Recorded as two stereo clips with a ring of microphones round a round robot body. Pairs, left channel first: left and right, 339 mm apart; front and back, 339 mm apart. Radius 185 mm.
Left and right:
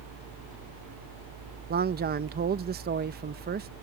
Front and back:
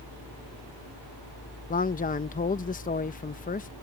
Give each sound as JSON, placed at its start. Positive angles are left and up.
{"t": 1.7, "sound": "a man speaking", "azimuth_deg": -50}